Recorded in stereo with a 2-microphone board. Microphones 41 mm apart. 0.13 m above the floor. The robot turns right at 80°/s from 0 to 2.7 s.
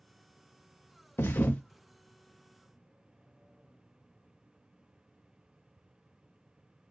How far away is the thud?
About 0.6 m.